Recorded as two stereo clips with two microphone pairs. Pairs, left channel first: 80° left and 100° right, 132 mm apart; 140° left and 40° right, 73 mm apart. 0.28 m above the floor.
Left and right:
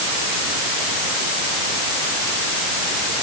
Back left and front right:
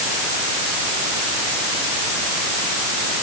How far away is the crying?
No crying in this recording.